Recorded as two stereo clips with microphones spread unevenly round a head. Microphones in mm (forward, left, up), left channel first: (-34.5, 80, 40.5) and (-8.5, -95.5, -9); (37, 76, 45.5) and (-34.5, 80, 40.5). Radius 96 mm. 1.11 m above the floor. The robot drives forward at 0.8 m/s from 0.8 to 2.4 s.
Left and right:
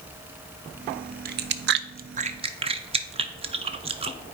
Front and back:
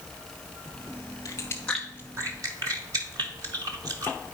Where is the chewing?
50° right, 0.6 m; by 4.2 s 135° right, 0.7 m.